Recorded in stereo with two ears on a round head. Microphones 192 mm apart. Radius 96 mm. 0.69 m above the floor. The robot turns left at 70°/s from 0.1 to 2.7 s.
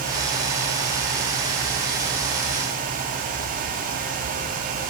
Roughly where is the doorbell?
I don't hear a doorbell.